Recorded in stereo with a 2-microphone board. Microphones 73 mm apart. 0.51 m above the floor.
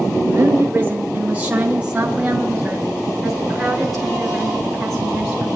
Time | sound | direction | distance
0.2 | a woman speaking | 40° right (ahead or behind) | 1.3 m